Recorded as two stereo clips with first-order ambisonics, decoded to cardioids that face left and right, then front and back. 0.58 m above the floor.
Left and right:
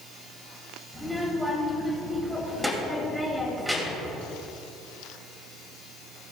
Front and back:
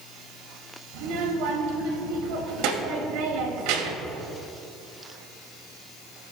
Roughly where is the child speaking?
Behind.